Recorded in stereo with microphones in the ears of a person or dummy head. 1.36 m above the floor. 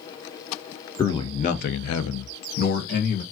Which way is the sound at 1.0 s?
15° left (ahead or behind).